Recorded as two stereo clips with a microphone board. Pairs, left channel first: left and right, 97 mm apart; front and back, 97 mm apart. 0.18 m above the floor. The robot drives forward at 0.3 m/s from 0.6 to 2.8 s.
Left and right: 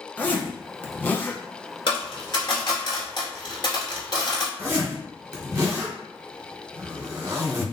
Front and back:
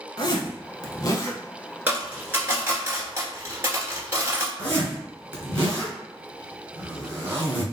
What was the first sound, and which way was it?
A zipper, 20° left.